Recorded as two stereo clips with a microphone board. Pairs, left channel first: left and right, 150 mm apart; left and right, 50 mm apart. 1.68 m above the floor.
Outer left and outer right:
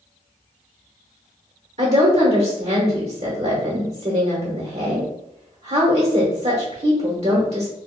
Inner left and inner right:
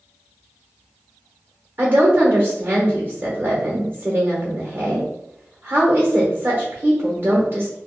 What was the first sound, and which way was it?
A woman speaking, 50° right (ahead or behind).